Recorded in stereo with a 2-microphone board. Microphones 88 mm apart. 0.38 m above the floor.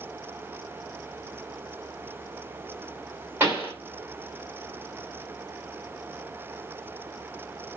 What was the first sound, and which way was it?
A pop, 25° right (ahead or behind).